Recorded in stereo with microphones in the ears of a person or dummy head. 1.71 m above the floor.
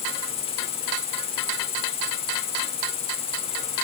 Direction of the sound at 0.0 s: 35° left (ahead or behind).